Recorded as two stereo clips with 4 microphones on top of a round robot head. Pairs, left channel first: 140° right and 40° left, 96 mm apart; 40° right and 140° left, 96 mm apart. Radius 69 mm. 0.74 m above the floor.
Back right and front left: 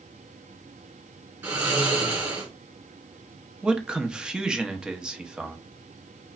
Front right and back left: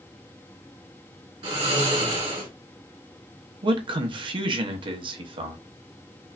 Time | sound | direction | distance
1.4 | snoring | 110° left | 1.9 m
3.6 | a man speaking | 120° left | 0.9 m